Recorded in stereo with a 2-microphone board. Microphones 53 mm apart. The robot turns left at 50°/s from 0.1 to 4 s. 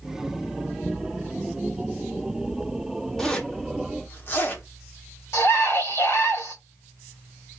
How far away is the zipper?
About 1.0 m.